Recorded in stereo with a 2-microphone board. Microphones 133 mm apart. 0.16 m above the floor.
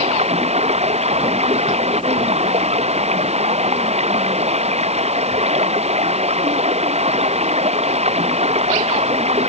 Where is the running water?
55° right (ahead or behind).